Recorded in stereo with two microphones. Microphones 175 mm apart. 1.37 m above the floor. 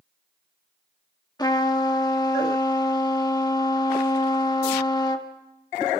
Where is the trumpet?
25° left (ahead or behind), 1.5 m.